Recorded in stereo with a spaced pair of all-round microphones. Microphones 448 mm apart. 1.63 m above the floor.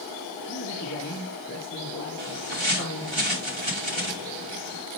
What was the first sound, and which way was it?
A man speaking, 35° left (ahead or behind).